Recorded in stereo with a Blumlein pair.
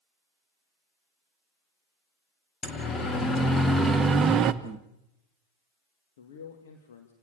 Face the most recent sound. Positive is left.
turn(degrees=60)